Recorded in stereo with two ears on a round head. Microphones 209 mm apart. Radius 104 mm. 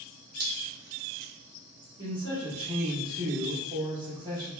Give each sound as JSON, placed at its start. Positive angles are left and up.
{"t": 0.4, "sound": "dripping", "side_deg": -45, "distance_m": 0.9}
{"t": 2.0, "sound": "a man speaking", "side_deg": -20, "distance_m": 1.3}